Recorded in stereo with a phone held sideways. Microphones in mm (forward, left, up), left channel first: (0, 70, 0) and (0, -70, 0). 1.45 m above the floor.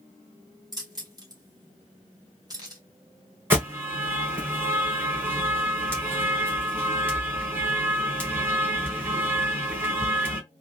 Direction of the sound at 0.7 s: 30° right (ahead or behind).